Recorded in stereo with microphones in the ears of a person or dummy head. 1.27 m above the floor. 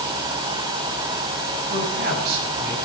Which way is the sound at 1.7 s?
50° right (ahead or behind).